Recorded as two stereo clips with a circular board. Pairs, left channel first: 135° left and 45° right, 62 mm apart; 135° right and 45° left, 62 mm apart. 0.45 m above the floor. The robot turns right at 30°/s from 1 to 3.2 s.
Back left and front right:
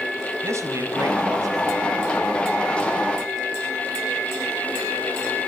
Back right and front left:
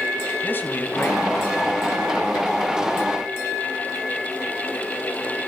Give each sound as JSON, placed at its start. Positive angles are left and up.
{"t": 0.4, "sound": "a man speaking", "azimuth_deg": -80, "distance_m": 3.0}